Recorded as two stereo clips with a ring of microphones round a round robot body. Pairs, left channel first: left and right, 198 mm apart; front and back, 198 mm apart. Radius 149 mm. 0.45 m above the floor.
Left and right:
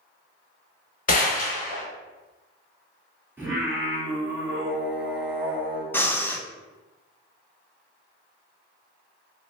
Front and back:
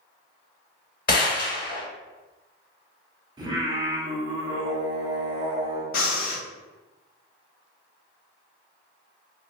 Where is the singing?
155° right, 1.4 m.